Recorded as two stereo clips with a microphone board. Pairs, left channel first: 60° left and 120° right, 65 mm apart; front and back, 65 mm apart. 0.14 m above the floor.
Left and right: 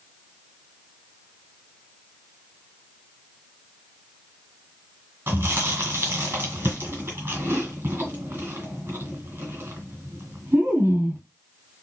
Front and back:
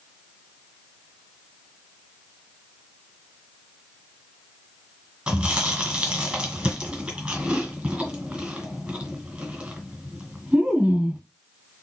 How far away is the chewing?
About 2 m.